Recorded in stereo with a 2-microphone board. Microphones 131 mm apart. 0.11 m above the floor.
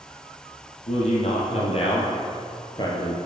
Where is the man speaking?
60° left (ahead or behind), 3.5 m; by 3.2 s 25° left (ahead or behind), 2 m.